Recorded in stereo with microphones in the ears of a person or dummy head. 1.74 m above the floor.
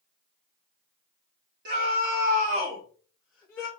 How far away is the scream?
About 1.1 m.